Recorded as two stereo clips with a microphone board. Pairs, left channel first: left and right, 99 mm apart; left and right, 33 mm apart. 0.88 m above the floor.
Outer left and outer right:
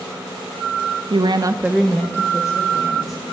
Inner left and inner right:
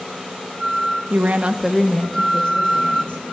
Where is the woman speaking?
60° right (ahead or behind), 0.8 m; by 3.2 s 40° left (ahead or behind), 2 m.